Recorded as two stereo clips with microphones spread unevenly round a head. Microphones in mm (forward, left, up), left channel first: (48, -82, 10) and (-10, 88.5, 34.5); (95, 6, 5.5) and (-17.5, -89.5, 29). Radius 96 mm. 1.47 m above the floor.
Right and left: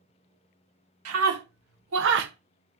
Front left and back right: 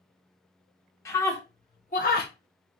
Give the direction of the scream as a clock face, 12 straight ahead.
8 o'clock.